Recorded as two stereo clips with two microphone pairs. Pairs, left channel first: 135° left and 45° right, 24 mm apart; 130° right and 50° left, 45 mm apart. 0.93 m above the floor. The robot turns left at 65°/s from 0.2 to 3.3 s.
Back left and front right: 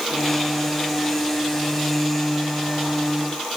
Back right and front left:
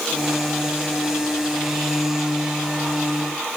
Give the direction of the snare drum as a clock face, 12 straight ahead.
No snare drum in this recording.